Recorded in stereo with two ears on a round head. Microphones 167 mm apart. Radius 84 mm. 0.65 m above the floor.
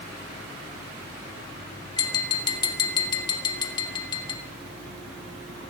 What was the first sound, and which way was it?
Tapping, 25° left (ahead or behind).